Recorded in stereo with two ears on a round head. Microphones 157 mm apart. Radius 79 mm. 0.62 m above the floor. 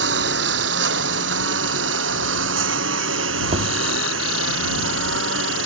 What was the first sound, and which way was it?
A lawn mower, 75° right (ahead or behind).